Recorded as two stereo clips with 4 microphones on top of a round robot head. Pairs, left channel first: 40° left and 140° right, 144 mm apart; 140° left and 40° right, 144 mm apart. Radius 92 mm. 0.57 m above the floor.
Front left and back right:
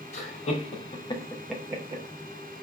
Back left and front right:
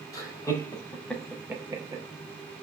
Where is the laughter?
75° left, 2 m; by 2.0 s 95° right, 1.3 m.